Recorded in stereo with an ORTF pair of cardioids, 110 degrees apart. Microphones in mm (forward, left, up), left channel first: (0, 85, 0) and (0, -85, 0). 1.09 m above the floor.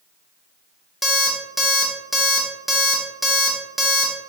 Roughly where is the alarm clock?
Ahead.